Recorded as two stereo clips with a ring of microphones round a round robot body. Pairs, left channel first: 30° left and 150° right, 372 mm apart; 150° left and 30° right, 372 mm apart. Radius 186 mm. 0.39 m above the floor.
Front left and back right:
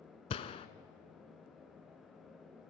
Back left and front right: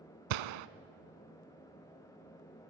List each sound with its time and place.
0.3 s a gunshot: 45° right, 0.8 m